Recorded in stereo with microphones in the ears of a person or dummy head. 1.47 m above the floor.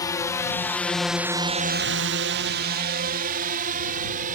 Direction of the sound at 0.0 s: 20° left (ahead or behind).